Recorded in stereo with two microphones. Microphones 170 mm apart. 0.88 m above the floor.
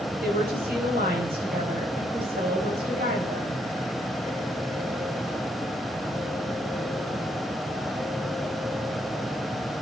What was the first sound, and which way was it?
A woman speaking, 75° right (ahead or behind).